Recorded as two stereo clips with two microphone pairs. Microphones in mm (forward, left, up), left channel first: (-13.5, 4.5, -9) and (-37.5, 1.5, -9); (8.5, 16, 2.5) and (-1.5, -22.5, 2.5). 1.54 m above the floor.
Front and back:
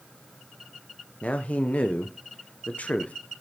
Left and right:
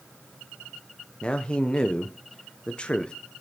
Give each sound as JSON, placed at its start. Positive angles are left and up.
{"t": 1.2, "sound": "a man speaking", "azimuth_deg": 10, "distance_m": 0.9}